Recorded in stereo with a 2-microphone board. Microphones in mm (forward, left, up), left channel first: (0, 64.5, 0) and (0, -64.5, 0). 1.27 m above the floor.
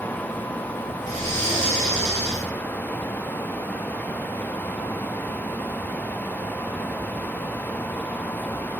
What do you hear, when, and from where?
1.0 s breathing: 65° right (ahead or behind), 4.5 m